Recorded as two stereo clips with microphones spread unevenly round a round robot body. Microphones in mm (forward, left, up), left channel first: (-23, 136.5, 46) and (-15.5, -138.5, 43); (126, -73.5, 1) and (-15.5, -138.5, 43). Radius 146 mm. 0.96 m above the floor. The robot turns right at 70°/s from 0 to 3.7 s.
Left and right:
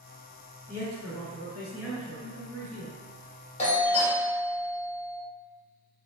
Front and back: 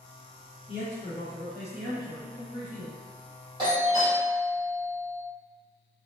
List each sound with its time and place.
0.7 s a man speaking: 35° left, 1.3 m; by 2.9 s 170° right, 1.3 m
3.6 s a doorbell: 135° left, 0.8 m; by 5.2 s 145° left, 0.8 m